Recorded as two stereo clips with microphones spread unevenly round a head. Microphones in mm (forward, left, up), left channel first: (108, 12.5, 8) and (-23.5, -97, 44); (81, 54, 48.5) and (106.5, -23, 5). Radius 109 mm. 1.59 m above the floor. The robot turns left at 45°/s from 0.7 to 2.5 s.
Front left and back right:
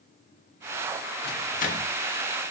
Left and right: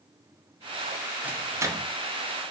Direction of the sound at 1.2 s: 10° left.